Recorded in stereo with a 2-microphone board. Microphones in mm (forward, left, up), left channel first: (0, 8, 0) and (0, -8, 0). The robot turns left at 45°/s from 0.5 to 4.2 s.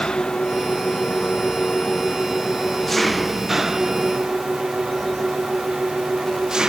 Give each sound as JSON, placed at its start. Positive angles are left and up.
{"t": 0.0, "sound": "an engine running", "azimuth_deg": 120}